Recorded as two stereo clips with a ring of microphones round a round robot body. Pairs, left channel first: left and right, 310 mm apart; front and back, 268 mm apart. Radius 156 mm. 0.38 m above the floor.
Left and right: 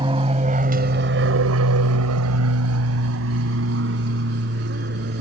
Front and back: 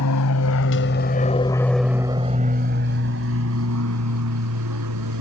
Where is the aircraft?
15° right; by 5.2 s 150° right.